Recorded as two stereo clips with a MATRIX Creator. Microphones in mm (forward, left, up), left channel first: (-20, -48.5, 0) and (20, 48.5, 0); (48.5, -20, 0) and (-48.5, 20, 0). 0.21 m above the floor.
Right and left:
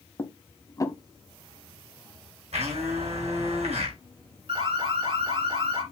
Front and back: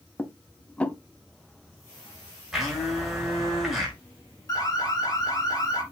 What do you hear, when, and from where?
0.2 s dishes clattering: 90° right, 1.0 m
2.5 s a blender: 70° left, 6 m
4.5 s an alarm: 30° left, 4 m